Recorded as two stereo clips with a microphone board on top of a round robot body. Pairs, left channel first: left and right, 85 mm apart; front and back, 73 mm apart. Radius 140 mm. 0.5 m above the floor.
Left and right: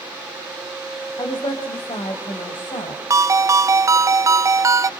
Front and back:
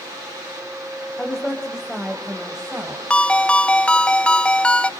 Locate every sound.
1.2 s a woman speaking: 75° left, 3.5 m; by 3.0 s 105° left, 3.5 m
3.1 s a ringtone: 70° right, 0.5 m